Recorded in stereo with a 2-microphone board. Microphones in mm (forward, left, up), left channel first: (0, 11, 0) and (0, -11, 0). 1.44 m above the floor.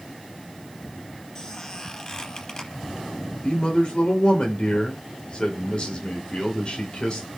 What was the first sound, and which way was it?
A squeak, 35° left (ahead or behind).